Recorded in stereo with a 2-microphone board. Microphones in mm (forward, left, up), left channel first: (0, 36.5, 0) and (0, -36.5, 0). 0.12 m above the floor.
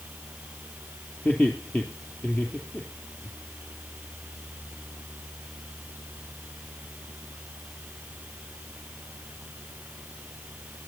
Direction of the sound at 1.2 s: 20° left (ahead or behind).